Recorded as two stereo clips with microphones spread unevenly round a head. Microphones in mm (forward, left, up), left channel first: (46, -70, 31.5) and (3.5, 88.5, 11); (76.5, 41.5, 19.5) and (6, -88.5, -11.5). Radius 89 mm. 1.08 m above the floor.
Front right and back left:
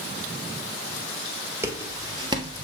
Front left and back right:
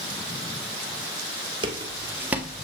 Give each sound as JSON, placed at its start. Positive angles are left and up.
{"t": 1.6, "sound": "footsteps", "azimuth_deg": -175, "distance_m": 1.2}